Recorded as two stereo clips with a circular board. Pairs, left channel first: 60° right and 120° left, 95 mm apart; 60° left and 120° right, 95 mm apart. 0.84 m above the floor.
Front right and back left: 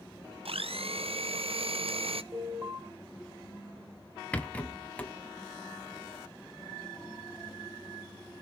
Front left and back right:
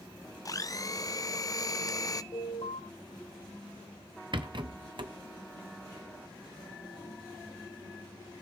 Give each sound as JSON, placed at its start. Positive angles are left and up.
{"t": 0.5, "sound": "a blender", "azimuth_deg": 110, "distance_m": 0.5}
{"t": 2.3, "sound": "an alarm", "azimuth_deg": 60, "distance_m": 4.5}
{"t": 4.3, "sound": "a rattle", "azimuth_deg": -135, "distance_m": 1.1}